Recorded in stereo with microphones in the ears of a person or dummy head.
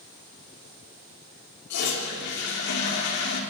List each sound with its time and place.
1.7 s a toilet flushing: 60° left (ahead or behind), 4 m